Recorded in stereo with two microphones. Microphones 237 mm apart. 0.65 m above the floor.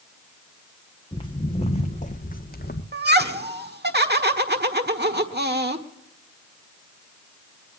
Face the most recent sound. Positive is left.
turn(degrees=-45)  # may be behind; listen again after turning